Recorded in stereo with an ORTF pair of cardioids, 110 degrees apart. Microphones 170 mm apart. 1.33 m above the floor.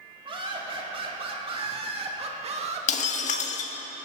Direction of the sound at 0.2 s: 30° right.